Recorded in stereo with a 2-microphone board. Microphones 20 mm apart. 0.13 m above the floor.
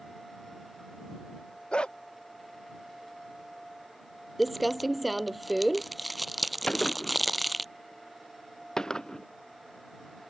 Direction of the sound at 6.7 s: 35° left (ahead or behind).